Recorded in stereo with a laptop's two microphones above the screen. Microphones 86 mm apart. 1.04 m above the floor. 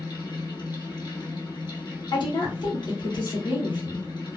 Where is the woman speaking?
60° left (ahead or behind), 1.4 m.